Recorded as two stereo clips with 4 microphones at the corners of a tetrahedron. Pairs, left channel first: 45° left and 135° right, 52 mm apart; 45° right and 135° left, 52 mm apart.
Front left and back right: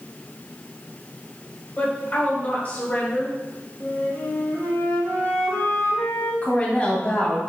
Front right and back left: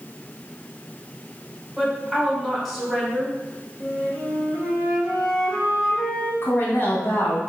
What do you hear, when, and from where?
1.8 s a woman speaking: 45° left, 1.6 m
3.8 s a flute: 25° left, 2 m
6.4 s a woman speaking: 15° right, 1.6 m